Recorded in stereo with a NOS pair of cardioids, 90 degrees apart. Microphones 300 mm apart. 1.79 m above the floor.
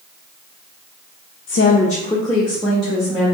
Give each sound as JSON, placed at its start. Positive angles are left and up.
{"t": 1.5, "sound": "a woman speaking", "azimuth_deg": 45, "distance_m": 0.5}